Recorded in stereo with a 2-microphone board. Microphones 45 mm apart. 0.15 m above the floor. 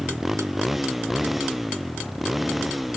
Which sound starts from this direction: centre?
A motorcycle, at 0.0 s.